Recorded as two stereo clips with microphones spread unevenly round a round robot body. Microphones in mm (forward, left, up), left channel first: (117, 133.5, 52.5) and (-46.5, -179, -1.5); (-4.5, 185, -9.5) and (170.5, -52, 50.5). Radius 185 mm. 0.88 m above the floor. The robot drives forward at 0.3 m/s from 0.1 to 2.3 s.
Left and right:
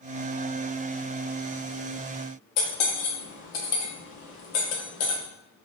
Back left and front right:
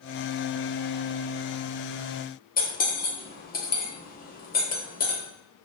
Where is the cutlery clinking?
65° left, 1.1 m.